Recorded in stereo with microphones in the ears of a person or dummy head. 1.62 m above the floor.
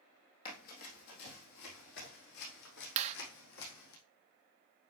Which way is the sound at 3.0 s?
30° right (ahead or behind).